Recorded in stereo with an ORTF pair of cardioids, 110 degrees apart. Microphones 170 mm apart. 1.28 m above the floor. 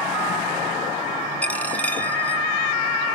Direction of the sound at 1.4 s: 10° left.